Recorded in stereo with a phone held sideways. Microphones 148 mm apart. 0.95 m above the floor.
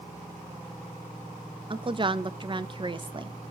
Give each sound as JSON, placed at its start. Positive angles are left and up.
{"t": 1.7, "sound": "a woman speaking", "side_deg": -35, "distance_m": 0.5}